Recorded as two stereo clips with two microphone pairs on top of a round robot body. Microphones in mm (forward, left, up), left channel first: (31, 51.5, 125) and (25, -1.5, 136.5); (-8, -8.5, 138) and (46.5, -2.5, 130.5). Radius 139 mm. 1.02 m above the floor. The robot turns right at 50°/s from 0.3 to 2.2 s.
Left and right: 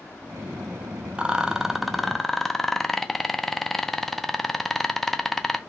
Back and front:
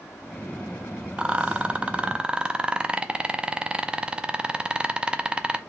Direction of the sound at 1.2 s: 20° right.